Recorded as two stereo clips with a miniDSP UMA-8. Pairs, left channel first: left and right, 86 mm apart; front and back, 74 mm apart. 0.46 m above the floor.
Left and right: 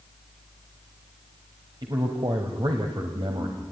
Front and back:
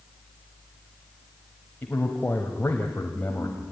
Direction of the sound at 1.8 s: 65° right.